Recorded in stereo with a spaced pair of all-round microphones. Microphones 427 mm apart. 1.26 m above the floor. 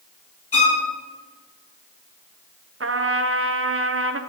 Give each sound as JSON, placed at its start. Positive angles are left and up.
{"t": 0.5, "sound": "a violin", "side_deg": 30, "distance_m": 2.5}
{"t": 2.8, "sound": "a trumpet", "side_deg": -30, "distance_m": 0.5}